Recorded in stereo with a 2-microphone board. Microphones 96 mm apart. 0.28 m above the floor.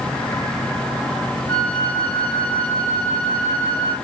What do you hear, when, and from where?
1.5 s a flute: 15° left (ahead or behind), 1.0 m